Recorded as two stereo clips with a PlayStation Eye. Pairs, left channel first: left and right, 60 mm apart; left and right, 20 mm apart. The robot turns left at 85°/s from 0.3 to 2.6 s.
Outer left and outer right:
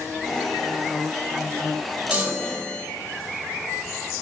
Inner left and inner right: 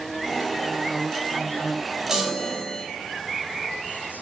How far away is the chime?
About 1.0 m.